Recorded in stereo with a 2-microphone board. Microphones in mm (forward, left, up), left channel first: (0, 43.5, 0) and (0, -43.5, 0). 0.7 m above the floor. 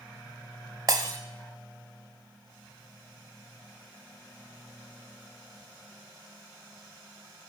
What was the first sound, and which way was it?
Breaking glass, 45° right (ahead or behind).